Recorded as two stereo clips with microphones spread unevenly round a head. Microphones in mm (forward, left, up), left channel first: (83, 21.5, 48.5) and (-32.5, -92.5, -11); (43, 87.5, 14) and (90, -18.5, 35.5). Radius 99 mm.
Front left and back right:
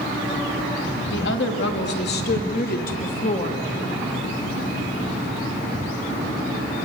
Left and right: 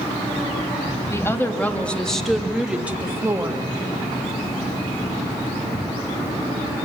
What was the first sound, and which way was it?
A woman speaking, 45° left.